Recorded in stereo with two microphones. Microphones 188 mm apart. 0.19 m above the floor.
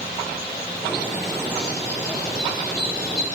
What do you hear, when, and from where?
0.8 s a bird: 5° left (ahead or behind), 4.5 m